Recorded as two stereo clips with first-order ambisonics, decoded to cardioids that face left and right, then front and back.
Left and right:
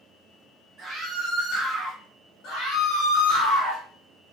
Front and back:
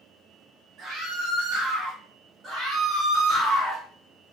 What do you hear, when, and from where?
0.8 s a scream: 145° right, 1.3 m; by 2.0 s 165° left, 1.4 m
2.4 s a scream: 115° left, 1.5 m